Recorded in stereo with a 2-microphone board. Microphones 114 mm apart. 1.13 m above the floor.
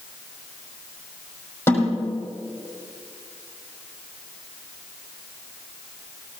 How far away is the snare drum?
About 6 m.